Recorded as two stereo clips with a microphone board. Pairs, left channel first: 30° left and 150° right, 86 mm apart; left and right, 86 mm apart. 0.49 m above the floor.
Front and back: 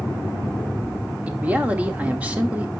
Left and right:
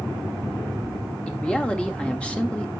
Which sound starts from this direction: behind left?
A man speaking, at 1.3 s.